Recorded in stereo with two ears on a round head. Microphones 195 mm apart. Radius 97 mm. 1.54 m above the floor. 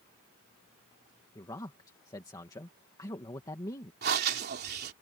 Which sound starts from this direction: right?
Breathing, at 4.0 s.